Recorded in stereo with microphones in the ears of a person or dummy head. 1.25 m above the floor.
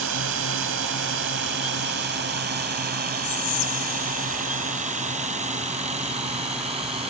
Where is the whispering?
80° left.